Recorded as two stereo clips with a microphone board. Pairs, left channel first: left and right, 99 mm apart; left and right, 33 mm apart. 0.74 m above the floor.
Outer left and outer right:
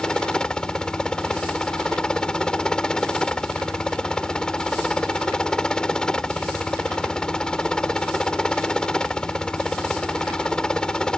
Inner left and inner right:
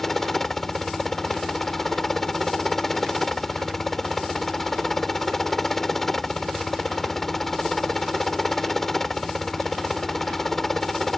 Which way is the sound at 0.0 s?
10° left (ahead or behind).